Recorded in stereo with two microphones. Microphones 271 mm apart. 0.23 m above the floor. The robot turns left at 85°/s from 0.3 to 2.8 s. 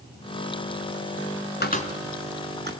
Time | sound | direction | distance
1.6 | a cupboard door | 40° left (ahead or behind) | 2 m